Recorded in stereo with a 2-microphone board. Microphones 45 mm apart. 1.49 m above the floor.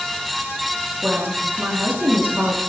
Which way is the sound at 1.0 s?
45° right (ahead or behind).